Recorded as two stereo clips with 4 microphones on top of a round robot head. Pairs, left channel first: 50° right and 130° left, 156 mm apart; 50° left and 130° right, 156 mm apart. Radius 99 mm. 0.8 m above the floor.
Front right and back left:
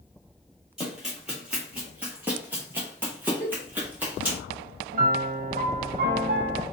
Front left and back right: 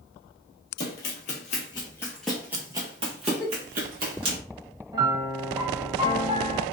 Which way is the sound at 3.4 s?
Straight ahead.